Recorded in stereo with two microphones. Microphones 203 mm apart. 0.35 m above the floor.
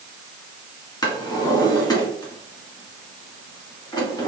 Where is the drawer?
20° left (ahead or behind), 1.5 m.